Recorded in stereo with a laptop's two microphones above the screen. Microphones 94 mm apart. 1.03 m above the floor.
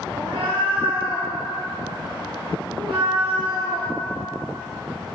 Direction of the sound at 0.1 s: 65° right (ahead or behind).